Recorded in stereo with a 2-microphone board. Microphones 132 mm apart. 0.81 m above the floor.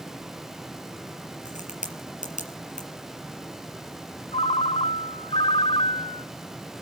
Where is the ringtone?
50° left (ahead or behind), 0.7 m.